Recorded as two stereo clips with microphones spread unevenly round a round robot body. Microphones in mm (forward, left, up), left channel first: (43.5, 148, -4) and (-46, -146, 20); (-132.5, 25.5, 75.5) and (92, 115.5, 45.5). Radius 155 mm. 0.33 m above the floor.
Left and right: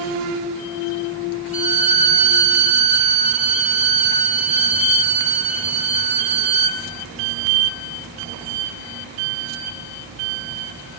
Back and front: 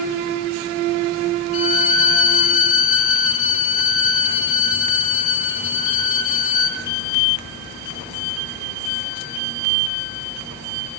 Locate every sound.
1.5 s a violin: straight behind, 2.5 m